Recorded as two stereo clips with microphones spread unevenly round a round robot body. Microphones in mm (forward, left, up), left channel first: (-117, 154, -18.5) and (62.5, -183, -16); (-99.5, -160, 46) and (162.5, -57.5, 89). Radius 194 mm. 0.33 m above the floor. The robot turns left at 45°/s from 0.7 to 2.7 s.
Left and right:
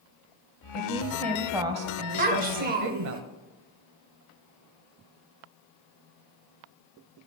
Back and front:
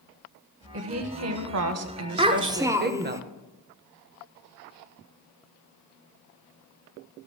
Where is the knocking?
No knocking in this recording.